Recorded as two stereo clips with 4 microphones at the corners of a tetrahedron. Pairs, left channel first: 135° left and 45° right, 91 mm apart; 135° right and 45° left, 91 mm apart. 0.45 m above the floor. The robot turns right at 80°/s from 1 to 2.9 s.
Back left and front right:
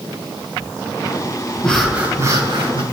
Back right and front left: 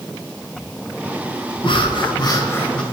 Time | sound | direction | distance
1.6 | breathing | 150° right | 1.8 m